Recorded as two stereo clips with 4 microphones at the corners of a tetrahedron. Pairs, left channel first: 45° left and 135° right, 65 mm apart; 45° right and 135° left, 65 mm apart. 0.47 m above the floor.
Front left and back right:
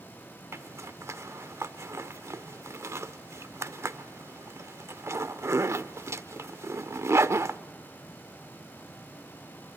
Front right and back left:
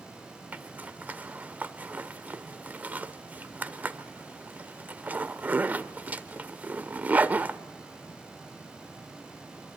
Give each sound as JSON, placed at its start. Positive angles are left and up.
{"t": 0.5, "sound": "a zipper", "azimuth_deg": -170, "distance_m": 0.7}